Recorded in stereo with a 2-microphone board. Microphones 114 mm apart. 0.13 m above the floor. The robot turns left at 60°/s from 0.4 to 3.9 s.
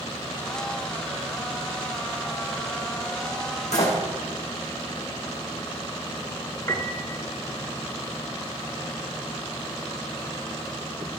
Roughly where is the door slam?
Left.